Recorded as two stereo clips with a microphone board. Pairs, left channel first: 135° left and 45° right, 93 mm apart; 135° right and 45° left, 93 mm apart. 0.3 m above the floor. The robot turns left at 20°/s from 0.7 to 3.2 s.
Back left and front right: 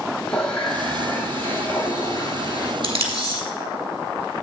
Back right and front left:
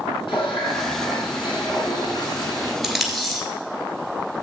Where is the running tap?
145° right, 2.0 m; by 2.7 s 175° left, 2.0 m.